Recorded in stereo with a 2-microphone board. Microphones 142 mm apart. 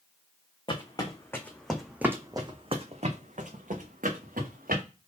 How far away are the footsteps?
About 1.1 m.